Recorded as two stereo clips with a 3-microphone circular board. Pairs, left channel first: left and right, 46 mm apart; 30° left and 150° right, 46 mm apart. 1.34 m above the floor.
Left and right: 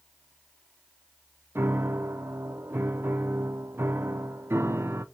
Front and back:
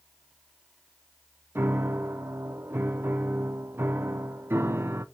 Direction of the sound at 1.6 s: 115° right.